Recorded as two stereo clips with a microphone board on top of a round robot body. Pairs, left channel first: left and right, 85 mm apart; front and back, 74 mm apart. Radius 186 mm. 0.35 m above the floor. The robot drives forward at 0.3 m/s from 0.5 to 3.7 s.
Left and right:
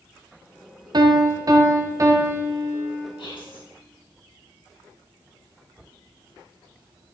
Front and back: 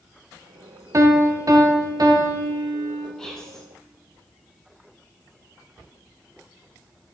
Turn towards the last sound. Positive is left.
turn(degrees=85)